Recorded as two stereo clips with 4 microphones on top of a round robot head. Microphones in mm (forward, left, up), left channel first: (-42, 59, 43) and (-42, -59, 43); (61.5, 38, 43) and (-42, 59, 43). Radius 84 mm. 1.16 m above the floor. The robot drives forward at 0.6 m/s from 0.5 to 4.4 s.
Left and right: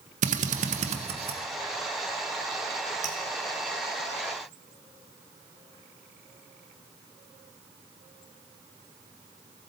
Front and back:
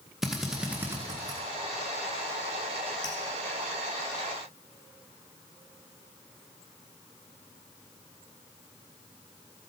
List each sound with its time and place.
0.2 s a drill: 105° right, 0.9 m; by 1.4 s 130° right, 1.2 m
3.0 s dripping: 70° right, 1.1 m; by 3.2 s 75° right, 1.1 m